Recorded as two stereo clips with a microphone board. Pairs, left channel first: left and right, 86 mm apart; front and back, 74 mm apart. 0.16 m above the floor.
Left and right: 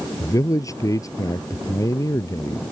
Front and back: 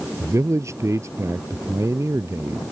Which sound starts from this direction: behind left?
A man speaking, at 0.2 s.